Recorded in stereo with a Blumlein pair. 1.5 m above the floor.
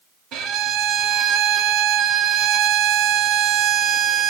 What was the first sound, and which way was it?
A violin, 35° right.